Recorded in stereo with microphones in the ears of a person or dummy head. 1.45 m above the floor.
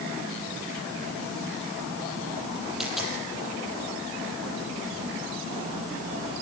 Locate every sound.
2.8 s a dropped coin: 5° right (ahead or behind), 6.5 m